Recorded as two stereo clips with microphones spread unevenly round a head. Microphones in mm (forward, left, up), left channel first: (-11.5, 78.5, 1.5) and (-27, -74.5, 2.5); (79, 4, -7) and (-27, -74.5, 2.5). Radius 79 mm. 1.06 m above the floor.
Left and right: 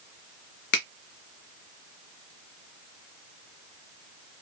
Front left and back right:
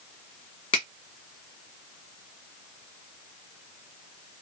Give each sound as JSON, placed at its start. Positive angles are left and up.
{"t": 0.7, "sound": "a finger snap", "azimuth_deg": 90, "distance_m": 0.9}